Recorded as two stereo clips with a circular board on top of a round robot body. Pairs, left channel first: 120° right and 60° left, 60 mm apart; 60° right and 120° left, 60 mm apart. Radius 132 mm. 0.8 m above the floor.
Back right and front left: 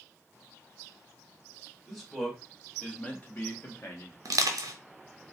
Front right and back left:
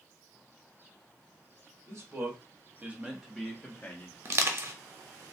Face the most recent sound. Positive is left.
turn(degrees=80)